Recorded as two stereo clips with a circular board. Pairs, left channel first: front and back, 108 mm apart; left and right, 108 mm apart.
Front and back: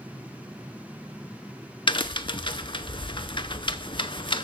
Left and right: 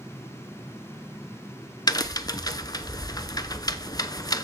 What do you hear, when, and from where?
1.9 s a crack: 40° left, 0.6 m